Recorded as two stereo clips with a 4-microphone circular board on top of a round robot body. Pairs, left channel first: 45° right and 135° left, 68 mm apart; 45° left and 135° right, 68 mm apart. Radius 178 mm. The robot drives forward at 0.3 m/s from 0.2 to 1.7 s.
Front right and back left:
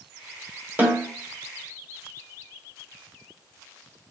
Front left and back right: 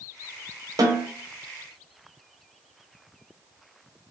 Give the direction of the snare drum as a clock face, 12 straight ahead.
5 o'clock.